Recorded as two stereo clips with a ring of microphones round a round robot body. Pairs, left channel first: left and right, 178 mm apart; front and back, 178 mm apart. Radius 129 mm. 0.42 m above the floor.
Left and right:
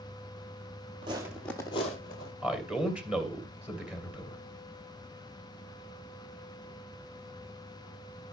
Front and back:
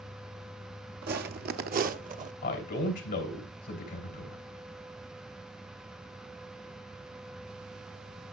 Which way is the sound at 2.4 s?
5° right.